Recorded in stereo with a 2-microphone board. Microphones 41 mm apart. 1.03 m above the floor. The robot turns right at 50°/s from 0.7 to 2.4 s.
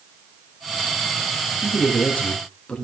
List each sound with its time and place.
1.6 s a man speaking: 115° left, 2 m; by 2.9 s 155° left, 2 m